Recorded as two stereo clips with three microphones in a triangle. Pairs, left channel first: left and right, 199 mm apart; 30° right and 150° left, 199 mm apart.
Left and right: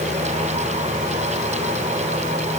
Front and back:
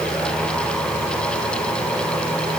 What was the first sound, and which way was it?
Only background noise.